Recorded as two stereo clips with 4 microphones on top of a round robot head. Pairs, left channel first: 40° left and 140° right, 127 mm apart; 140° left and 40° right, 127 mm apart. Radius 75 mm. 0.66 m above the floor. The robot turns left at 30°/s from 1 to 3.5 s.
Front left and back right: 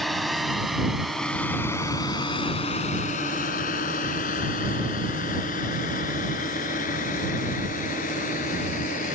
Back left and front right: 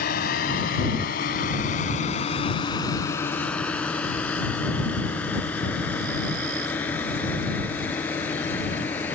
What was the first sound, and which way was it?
A drone, 130° left.